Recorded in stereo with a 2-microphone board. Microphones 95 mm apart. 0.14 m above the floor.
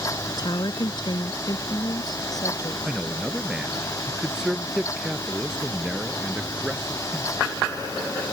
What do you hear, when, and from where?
0.3 s a woman speaking: 45° left (ahead or behind); by 2.8 s 40° left (ahead or behind)
2.9 s a man speaking: 10° right (ahead or behind)